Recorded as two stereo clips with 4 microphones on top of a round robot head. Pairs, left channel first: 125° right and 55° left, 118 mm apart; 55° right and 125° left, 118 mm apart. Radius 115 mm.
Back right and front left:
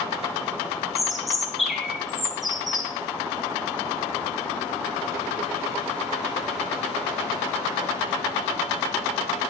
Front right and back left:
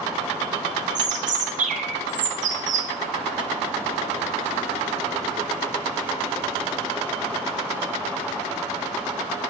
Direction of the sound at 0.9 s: 145° left.